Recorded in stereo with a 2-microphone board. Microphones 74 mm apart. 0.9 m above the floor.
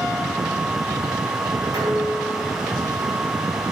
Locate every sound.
1.7 s dishes clattering: 60° right (ahead or behind), 7 m